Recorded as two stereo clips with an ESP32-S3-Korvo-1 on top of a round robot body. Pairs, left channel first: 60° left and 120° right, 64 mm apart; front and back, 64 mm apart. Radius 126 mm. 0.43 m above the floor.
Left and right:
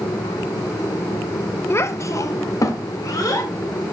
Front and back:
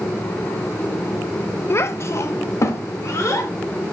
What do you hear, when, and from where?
1.7 s a child speaking: 30° left, 0.6 m; by 3.5 s 45° left, 1.7 m